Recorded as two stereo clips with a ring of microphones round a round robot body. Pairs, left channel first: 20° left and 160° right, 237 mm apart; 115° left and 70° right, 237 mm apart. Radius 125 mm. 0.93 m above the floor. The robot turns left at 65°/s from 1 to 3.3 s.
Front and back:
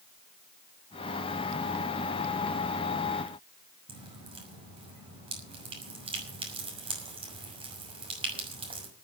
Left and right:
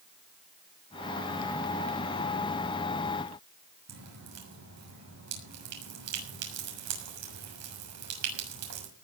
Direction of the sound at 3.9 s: 90° right.